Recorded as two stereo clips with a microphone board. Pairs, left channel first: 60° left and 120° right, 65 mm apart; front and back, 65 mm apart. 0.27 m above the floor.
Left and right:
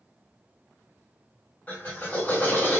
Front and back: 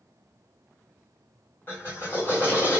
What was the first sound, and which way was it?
A drill, 20° left.